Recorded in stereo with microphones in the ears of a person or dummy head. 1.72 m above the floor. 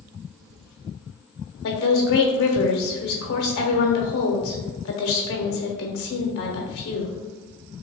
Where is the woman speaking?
55° left (ahead or behind), 0.9 m.